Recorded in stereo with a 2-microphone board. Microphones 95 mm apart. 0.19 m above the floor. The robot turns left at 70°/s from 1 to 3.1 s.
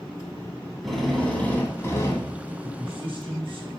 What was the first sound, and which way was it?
A drill, 175° left.